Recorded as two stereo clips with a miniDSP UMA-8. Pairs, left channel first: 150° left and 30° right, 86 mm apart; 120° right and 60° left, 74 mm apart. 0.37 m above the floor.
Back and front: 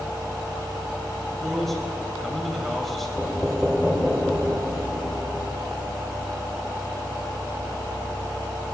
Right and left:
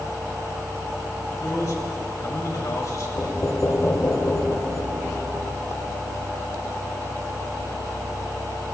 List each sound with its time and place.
1.4 s a man speaking: 120° right, 2 m
3.2 s knocking: 110° right, 1.3 m